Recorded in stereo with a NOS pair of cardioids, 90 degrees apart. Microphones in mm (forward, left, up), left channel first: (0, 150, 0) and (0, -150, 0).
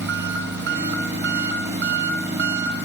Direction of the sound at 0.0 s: 35° right.